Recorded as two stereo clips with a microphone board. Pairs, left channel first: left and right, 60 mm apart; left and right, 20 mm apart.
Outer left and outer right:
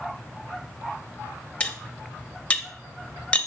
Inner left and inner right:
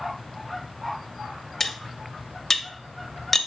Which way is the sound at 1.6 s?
20° left (ahead or behind).